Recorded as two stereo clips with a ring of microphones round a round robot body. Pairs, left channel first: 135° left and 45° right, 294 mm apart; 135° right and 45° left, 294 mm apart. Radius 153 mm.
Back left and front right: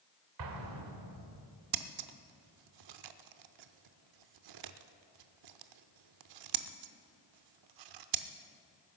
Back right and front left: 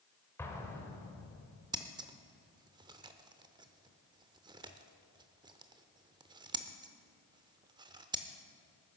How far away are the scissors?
About 0.7 m.